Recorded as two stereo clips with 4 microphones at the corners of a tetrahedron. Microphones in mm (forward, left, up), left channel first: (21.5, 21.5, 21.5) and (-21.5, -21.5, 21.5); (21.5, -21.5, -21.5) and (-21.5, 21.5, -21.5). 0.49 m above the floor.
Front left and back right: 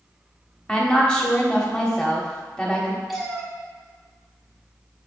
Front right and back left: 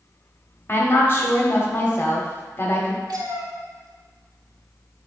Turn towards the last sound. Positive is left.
turn(degrees=135)